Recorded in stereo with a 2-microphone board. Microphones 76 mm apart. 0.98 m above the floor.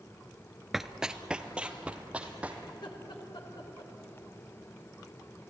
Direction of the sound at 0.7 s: Centre (ahead or behind).